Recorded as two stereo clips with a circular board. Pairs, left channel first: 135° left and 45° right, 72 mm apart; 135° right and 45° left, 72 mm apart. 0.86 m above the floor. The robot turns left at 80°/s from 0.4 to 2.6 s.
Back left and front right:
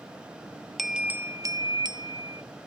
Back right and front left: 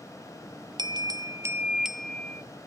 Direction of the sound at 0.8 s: 45° left.